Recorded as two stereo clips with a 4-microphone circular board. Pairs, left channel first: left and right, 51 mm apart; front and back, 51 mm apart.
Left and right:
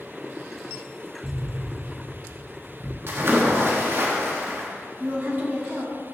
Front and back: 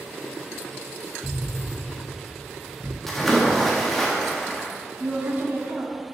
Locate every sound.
1.2 s an explosion: 75° right, 1.0 m
3.1 s a splash: 85° right, 1.3 m
5.0 s a woman speaking: 135° right, 1.4 m